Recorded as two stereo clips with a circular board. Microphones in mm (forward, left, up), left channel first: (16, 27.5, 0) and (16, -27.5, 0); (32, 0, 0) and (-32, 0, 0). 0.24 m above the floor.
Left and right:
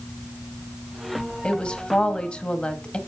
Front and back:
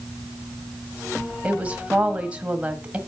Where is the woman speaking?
135° left, 1.2 m.